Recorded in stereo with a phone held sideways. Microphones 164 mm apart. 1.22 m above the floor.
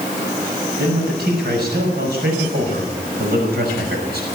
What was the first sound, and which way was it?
A man speaking, 70° right (ahead or behind).